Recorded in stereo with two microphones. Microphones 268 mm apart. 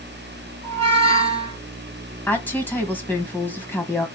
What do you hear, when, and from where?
0.6 s a squeak: 20° right (ahead or behind), 2 m
2.3 s a woman speaking: 5° left (ahead or behind), 1.3 m